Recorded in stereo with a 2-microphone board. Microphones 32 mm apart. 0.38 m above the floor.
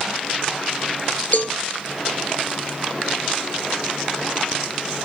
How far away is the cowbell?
About 1.0 m.